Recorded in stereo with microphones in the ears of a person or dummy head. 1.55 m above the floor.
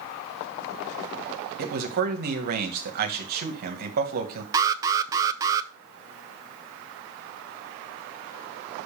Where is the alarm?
20° right (ahead or behind), 0.6 m.